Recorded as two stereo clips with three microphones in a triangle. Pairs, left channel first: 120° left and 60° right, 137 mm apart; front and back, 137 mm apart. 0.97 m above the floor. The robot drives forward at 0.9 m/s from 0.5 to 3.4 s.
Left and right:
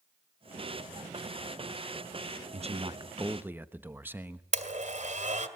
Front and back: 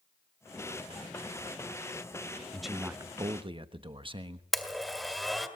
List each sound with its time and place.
2.5 s a man speaking: 85° right, 0.8 m; by 4.4 s 135° right, 1.1 m
4.5 s a blender: 90° right, 2 m